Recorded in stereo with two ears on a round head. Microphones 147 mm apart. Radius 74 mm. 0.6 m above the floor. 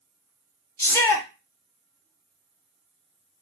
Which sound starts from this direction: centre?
A shout, at 0.8 s.